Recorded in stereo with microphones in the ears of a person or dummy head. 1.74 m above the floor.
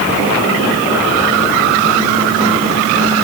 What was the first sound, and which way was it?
Only background noise.